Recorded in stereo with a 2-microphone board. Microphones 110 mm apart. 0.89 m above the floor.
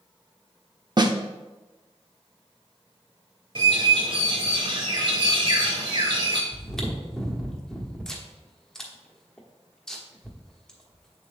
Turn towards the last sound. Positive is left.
turn(degrees=5)  # may be behind; listen again after turning